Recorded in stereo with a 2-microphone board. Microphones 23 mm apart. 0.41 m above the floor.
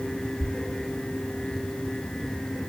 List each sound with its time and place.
0.4 s a thud: 65° left (ahead or behind), 1.1 m